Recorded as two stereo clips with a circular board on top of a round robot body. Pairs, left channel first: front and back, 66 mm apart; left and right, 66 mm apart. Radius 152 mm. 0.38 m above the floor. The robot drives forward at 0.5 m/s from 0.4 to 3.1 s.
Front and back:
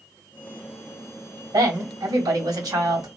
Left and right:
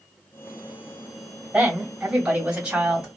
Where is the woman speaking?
165° right, 2.5 m.